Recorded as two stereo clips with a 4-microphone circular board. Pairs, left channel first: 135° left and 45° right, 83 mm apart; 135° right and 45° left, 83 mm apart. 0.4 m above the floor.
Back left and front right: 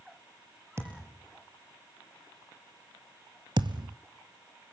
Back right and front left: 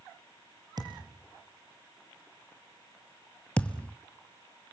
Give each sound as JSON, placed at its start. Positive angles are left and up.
{"t": 0.8, "sound": "a thud", "azimuth_deg": 10, "distance_m": 4.0}
{"t": 3.6, "sound": "a thud", "azimuth_deg": -60, "distance_m": 0.9}